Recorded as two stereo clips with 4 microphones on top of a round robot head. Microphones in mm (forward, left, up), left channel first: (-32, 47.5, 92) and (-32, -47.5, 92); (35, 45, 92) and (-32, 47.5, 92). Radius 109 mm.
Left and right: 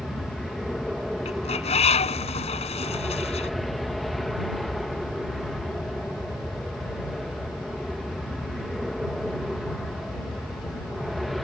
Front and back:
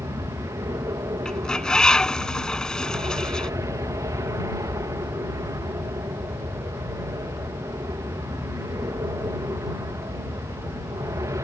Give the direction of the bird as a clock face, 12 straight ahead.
9 o'clock.